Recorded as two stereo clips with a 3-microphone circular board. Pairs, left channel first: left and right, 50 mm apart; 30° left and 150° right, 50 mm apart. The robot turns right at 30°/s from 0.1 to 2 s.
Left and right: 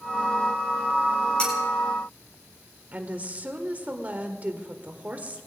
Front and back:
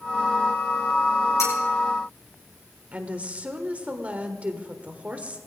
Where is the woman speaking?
115° right, 1.5 m.